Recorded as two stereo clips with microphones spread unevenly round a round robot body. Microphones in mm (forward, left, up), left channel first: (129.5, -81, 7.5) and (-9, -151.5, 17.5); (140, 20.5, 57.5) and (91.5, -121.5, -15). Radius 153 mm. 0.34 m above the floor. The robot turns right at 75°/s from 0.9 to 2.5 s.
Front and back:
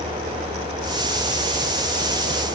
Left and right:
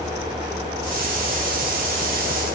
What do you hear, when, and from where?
Only background noise.